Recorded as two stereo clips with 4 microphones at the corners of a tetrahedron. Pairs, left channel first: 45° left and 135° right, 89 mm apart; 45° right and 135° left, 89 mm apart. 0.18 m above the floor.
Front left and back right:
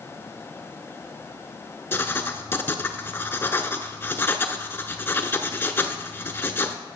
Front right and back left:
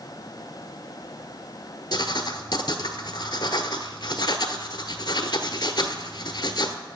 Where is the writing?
15° right, 0.7 m.